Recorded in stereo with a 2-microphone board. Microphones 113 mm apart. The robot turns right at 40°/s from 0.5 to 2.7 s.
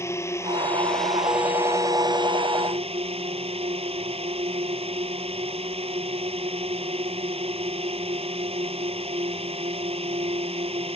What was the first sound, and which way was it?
A drone, 155° left.